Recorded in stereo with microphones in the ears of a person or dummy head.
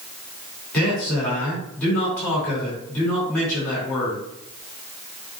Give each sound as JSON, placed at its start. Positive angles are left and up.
{"t": 0.7, "sound": "a man speaking", "side_deg": 10, "distance_m": 4.0}